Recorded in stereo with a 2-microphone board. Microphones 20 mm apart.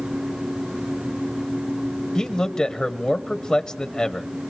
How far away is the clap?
I don't hear a clap.